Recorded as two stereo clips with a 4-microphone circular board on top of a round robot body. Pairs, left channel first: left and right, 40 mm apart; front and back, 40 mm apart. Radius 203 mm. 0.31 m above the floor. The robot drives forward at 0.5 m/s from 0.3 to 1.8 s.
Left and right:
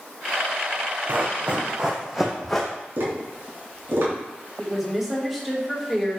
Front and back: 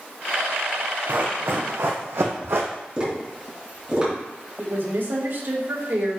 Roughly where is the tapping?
Behind right.